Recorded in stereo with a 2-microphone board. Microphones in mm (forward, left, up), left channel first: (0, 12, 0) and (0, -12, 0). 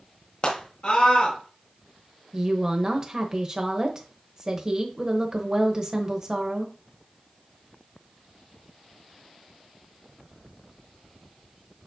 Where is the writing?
I don't hear writing.